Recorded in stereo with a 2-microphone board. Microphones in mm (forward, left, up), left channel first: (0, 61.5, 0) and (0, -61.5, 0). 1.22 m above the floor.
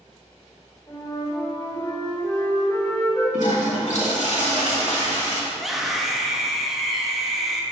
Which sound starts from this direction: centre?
A scream, at 5.5 s.